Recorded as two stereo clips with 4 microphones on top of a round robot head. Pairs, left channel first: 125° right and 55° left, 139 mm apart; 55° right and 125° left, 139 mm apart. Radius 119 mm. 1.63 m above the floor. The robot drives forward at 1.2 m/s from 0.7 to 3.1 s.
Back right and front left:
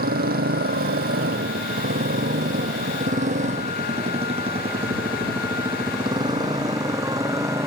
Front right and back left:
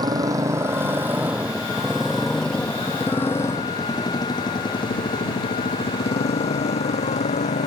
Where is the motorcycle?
60° left; by 7.7 s 15° right.